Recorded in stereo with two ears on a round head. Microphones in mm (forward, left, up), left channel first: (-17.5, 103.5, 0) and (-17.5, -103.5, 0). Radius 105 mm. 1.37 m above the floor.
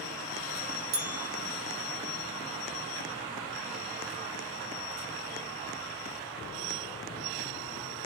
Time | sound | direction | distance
0.9 | a bell | 40° right (ahead or behind) | 0.8 m